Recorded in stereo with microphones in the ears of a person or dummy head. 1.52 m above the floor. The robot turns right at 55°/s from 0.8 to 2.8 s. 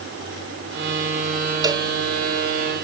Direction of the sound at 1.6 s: 20° right (ahead or behind).